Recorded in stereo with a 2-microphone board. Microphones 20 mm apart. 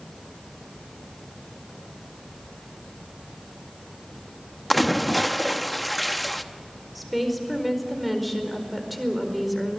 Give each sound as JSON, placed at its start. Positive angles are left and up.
{"t": 4.7, "sound": "a splash", "side_deg": 5, "distance_m": 0.8}
{"t": 7.0, "sound": "a woman speaking", "side_deg": 0, "distance_m": 4.5}